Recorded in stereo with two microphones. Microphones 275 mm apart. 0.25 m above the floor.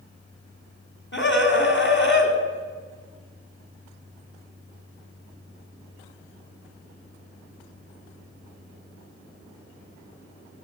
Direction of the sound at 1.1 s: 45° left (ahead or behind).